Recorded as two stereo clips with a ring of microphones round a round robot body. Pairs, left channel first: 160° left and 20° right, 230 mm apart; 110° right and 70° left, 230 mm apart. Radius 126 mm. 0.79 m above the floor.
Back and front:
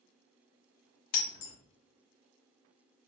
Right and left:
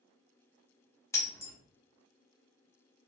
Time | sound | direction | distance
1.1 | breaking glass | 170° left | 0.9 m